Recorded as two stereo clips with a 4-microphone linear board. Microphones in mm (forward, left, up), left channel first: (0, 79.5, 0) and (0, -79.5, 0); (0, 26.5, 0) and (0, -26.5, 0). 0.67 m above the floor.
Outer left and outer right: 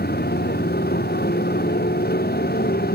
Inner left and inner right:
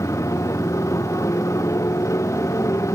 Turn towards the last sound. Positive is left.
turn(degrees=80)